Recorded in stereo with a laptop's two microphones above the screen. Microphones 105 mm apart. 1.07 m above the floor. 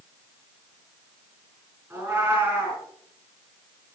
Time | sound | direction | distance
1.9 | a cat meowing | 30° right (ahead or behind) | 4 m